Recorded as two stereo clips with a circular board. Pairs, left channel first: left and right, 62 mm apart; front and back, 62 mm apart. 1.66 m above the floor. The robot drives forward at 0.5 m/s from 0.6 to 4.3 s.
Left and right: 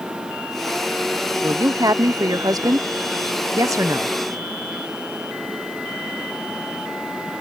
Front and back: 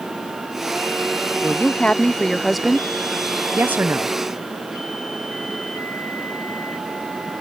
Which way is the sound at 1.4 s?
60° right.